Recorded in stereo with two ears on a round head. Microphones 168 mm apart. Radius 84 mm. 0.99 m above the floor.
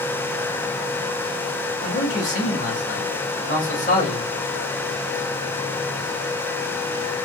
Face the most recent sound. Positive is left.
turn(degrees=40)  # may be behind; listen again after turning